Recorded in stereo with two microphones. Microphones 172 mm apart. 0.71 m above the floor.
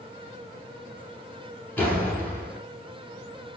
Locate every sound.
1.8 s a door slam: 10° left (ahead or behind), 6.5 m